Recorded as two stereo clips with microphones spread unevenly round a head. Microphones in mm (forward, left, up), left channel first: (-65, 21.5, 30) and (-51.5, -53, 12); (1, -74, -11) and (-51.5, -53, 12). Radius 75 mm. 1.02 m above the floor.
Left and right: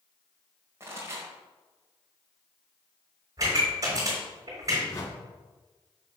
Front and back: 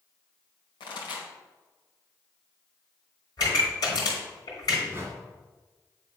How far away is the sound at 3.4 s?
About 3 m.